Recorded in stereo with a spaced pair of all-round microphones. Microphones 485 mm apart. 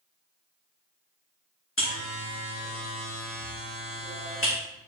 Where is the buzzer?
25° left (ahead or behind), 2.5 m.